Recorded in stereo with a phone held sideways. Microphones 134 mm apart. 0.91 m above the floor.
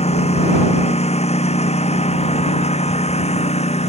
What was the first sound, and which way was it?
A lawn mower, 55° left (ahead or behind).